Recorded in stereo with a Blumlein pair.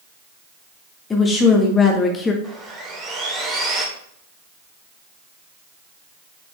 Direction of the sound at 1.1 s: 20° left.